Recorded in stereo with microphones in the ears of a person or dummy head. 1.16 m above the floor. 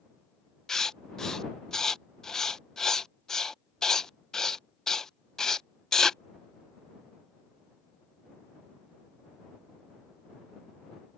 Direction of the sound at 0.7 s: 5° left (ahead or behind).